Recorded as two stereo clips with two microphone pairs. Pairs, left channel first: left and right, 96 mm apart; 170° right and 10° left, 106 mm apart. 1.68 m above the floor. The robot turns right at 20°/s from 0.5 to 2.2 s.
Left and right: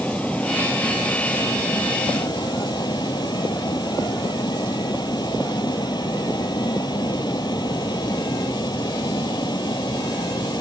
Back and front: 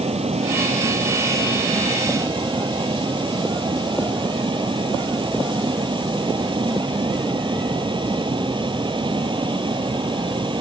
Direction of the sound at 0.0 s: 15° left.